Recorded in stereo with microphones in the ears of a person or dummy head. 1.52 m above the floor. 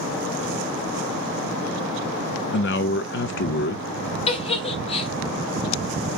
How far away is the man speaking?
About 0.5 m.